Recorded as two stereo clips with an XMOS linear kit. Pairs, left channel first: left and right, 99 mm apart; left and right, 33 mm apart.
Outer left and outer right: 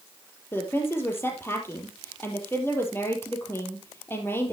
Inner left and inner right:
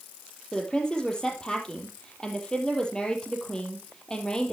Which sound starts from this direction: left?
A woman speaking, at 0.5 s.